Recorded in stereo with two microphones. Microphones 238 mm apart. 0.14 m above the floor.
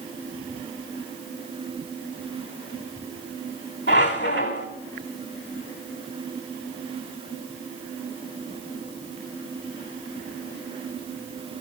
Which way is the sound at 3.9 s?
50° left (ahead or behind).